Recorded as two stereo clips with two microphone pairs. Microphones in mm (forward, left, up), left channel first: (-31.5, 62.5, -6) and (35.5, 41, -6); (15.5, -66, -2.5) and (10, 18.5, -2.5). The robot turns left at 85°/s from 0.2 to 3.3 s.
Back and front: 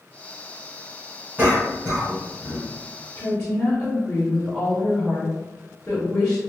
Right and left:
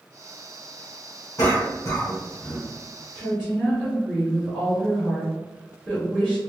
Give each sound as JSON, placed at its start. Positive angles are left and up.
{"t": 1.4, "sound": "a cough", "azimuth_deg": -80, "distance_m": 2.0}
{"t": 3.1, "sound": "a woman speaking", "azimuth_deg": -160, "distance_m": 1.3}